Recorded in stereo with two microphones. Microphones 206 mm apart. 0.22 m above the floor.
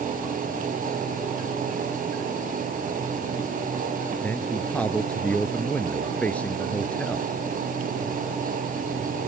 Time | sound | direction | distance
4.2 | a man speaking | 5° left (ahead or behind) | ?